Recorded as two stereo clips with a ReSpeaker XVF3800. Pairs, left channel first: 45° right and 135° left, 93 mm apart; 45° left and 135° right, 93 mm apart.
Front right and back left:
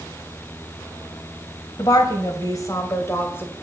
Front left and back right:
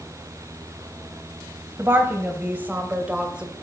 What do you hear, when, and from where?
1.8 s a woman speaking: 75° right, 2.0 m; by 3.5 s 70° right, 1.3 m